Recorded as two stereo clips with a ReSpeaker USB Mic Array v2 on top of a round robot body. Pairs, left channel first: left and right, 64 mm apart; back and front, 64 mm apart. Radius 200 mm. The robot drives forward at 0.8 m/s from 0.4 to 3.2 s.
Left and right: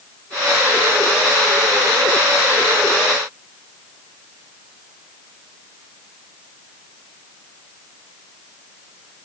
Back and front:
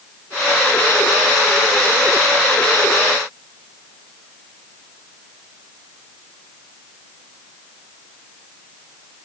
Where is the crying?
No crying in this recording.